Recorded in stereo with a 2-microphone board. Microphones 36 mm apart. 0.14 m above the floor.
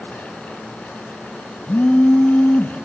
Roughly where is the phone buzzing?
Left.